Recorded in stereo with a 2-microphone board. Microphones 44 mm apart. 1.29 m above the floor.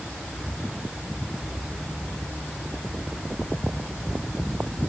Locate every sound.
Only background noise.